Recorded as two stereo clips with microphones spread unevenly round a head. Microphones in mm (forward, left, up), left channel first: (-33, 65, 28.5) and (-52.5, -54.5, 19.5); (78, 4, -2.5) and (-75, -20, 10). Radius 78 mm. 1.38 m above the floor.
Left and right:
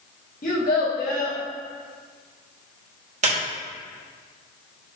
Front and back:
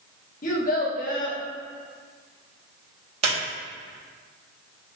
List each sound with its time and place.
0.4 s a child speaking: 50° left, 1.4 m
3.2 s a squeak: 125° right, 1.6 m